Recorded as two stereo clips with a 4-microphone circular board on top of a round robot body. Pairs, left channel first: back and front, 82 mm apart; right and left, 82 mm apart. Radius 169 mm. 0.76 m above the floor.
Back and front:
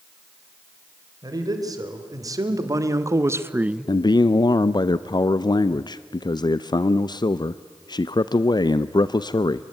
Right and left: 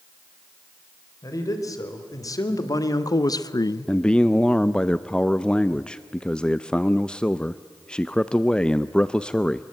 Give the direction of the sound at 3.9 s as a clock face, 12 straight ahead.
6 o'clock.